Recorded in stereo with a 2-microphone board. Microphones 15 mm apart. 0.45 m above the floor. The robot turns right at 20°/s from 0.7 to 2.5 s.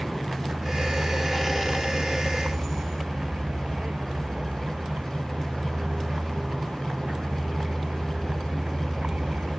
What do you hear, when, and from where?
0.0 s a vehicle: 130° right; by 9.6 s 90° right